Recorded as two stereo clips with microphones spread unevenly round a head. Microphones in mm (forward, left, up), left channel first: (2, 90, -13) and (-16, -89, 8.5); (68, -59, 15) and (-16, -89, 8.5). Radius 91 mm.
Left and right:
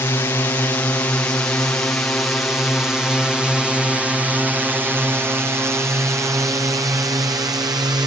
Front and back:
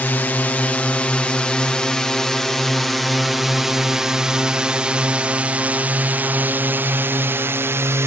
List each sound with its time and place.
0.0 s a drone: 55° left; by 8.1 s 155° right